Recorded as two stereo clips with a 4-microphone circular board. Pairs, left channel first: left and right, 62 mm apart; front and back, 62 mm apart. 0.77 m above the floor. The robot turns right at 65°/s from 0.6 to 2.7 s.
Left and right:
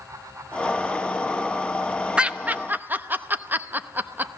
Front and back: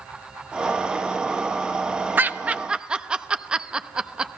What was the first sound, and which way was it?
Laughter, 150° right.